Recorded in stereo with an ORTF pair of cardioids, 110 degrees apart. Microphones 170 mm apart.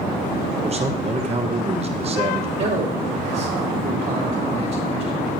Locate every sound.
0.6 s a man speaking: 35° right, 1.0 m
2.6 s a man speaking: 60° right, 2.5 m